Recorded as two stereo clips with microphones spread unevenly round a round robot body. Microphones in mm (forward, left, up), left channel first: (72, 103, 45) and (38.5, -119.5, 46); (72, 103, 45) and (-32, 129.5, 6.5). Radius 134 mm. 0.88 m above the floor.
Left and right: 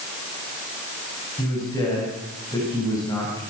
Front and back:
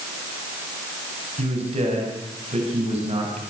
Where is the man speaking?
160° left, 6 m.